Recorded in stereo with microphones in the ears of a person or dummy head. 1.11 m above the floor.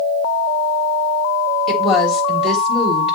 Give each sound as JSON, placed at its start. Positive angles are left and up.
{"t": 1.7, "sound": "a woman speaking", "side_deg": 0, "distance_m": 4.0}